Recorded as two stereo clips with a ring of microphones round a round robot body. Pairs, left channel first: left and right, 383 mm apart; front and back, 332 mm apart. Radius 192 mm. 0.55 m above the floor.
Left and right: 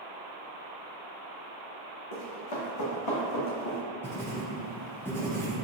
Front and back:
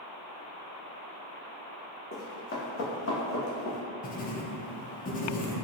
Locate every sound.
2.1 s running footsteps: 65° left, 1.7 m; by 3.8 s 30° left, 1.6 m
4.0 s writing: 15° left, 0.6 m